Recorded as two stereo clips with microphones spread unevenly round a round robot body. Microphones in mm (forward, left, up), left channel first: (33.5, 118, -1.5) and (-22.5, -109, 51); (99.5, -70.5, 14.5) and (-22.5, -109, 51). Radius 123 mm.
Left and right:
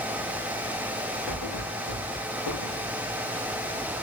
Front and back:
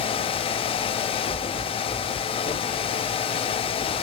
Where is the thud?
65° left, 6 m.